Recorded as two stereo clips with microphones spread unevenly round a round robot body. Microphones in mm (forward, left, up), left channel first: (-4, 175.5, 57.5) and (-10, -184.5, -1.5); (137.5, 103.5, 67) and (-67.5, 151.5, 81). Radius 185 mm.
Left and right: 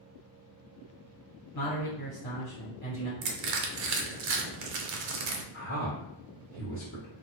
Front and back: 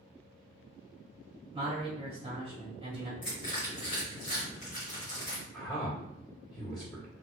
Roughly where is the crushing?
Right.